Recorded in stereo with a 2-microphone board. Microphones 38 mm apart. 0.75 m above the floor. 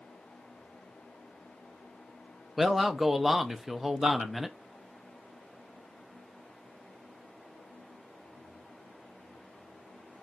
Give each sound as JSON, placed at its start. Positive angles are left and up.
{"t": 2.6, "sound": "a man speaking", "side_deg": -5, "distance_m": 0.5}